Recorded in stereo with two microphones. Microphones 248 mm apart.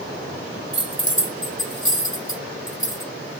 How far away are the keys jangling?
About 1.8 m.